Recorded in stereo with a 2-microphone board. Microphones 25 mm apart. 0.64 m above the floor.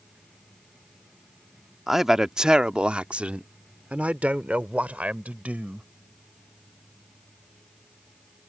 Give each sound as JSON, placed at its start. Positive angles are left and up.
{"t": 1.9, "sound": "a man speaking", "side_deg": -10}